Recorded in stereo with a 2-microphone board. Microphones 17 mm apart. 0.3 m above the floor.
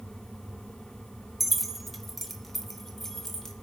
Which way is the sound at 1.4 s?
5° right (ahead or behind).